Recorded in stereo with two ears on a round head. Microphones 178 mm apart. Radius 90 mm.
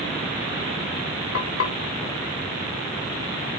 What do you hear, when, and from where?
1.3 s frying: 70° left (ahead or behind), 3 m